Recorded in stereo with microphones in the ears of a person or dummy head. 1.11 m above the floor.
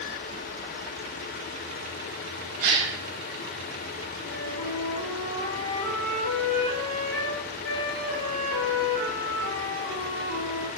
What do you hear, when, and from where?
2.6 s a gasp: 50° right (ahead or behind), 1.6 m
4.2 s a flute: 75° left (ahead or behind), 1.8 m